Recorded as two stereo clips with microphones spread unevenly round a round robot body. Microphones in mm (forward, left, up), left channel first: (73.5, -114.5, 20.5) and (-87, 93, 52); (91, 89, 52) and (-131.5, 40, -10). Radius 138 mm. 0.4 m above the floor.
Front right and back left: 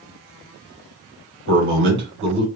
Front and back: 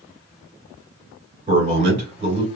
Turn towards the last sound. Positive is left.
turn(degrees=160)